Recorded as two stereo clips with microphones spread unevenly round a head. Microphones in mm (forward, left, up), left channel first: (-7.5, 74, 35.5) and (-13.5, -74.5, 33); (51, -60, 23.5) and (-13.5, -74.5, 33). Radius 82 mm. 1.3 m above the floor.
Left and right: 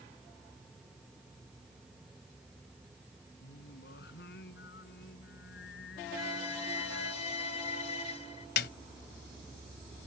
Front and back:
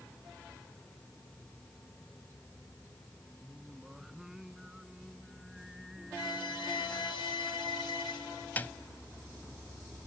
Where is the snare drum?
95° left.